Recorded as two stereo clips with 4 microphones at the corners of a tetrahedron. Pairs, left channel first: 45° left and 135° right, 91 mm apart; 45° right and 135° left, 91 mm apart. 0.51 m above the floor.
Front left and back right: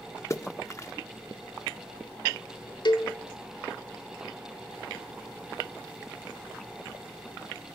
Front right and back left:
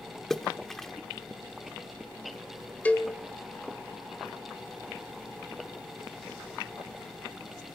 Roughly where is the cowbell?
Ahead left.